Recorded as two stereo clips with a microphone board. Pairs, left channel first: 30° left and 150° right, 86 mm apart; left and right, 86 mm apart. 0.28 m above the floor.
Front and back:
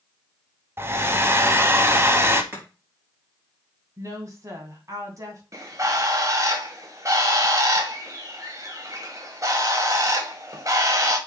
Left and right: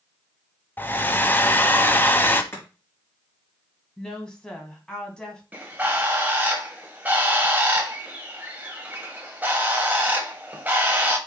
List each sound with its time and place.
0.8 s a hair dryer: 155° left, 0.8 m
2.5 s chopping: 150° left, 4.5 m
4.0 s a woman speaking: 170° left, 2.5 m
5.5 s a bird: 145° right, 1.5 m